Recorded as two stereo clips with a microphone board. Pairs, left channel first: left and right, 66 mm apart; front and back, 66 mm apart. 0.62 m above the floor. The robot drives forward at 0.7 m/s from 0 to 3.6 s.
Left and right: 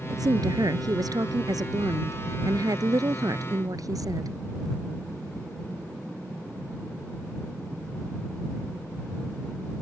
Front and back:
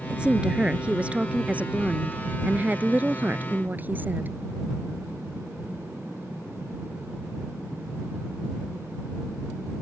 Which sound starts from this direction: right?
A woman speaking, at 0.1 s.